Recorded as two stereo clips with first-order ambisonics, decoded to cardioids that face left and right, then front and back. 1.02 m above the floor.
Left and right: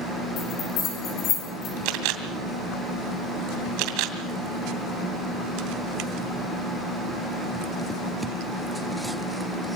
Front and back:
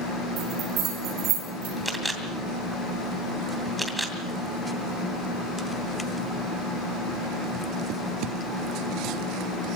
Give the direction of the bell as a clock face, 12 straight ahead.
8 o'clock.